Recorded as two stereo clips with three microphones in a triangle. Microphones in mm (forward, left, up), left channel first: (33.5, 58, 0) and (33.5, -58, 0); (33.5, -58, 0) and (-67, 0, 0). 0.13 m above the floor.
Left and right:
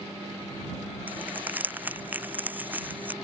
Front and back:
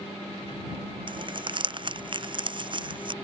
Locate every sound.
1.1 s crumpling: 165° right